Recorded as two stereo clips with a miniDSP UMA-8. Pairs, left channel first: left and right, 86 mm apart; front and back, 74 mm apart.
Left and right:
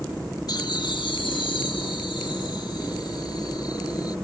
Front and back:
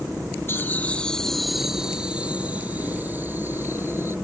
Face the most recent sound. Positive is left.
turn(degrees=125)